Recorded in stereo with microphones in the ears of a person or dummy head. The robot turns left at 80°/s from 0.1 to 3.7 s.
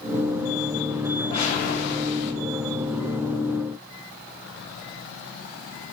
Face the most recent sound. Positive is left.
turn(degrees=-45)